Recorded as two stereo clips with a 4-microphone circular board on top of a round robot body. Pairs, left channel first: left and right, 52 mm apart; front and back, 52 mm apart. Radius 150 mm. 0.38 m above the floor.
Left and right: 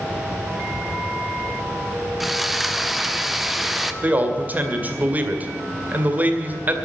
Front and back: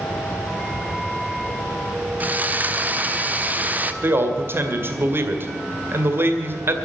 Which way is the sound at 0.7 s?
85° left.